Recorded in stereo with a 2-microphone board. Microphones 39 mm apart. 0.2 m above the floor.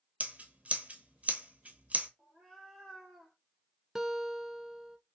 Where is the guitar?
10° right (ahead or behind), 0.5 m.